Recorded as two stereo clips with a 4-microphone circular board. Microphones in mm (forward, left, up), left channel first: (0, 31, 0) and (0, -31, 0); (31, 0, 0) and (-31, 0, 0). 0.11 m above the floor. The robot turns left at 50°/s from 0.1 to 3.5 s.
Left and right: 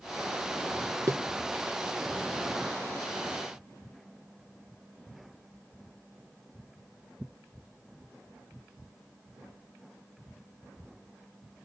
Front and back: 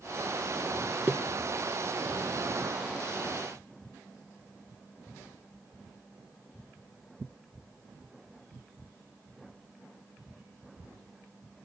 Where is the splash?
125° right, 0.6 m; by 1.7 s 155° right, 0.6 m.